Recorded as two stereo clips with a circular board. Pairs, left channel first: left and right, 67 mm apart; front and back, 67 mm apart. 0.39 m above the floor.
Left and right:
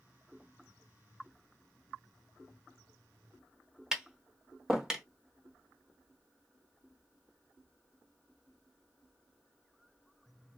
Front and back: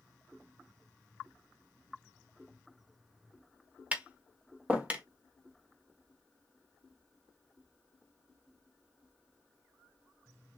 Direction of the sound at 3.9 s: 155° right.